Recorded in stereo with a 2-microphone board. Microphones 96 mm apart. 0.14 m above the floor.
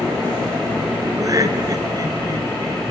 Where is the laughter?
40° right (ahead or behind), 1.8 m.